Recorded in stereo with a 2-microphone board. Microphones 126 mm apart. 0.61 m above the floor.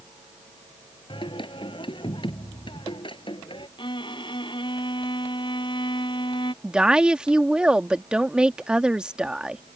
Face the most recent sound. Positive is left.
turn(degrees=-5)  # may be behind; listen again after turning